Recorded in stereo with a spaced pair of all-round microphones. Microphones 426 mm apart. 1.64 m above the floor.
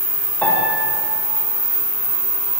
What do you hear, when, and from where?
0.4 s a piano: 5° left (ahead or behind), 9 m